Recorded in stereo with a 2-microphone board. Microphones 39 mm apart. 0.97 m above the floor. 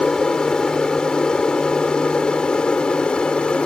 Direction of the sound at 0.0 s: 20° left (ahead or behind).